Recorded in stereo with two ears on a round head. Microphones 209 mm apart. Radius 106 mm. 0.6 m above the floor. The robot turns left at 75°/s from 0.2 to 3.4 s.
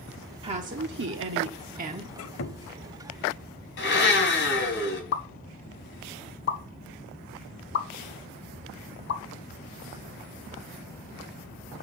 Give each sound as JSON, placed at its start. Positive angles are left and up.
{"t": 0.4, "sound": "a woman speaking", "azimuth_deg": -25, "distance_m": 1.2}
{"t": 2.1, "sound": "a squeak", "azimuth_deg": 75, "distance_m": 0.7}
{"t": 3.8, "sound": "a blender", "side_deg": 55, "distance_m": 4.5}
{"t": 5.1, "sound": "a pop", "side_deg": 50, "distance_m": 1.1}